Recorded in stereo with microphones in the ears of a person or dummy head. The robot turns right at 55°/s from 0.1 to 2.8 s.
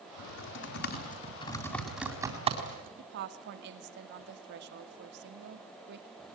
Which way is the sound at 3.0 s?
65° right (ahead or behind).